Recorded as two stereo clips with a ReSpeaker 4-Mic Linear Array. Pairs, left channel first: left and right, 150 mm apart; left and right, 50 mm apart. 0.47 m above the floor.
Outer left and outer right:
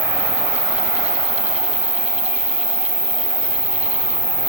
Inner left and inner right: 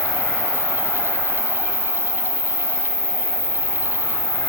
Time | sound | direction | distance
0.0 | an insect | 35° left (ahead or behind) | 1.9 m